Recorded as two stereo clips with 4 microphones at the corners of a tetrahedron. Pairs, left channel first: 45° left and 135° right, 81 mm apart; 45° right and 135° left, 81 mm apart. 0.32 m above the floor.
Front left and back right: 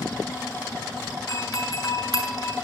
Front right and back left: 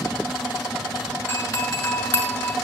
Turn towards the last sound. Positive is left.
turn(degrees=15)